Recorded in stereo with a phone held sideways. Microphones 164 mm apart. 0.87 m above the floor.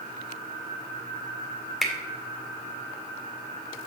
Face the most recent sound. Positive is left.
turn(degrees=0)  # may be behind; listen again after turning